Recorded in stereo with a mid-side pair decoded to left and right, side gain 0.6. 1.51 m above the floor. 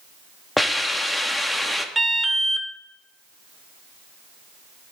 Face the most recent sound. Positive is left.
turn(degrees=-5)